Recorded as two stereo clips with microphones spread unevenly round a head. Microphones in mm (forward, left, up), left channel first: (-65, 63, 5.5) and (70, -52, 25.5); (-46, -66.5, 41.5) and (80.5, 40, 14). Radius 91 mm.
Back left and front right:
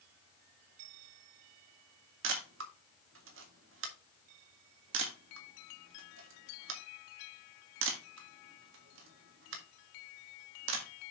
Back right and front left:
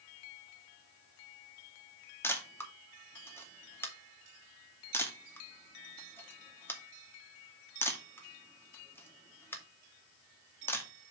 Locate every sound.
2.2 s a camera shutter: 65° right, 2 m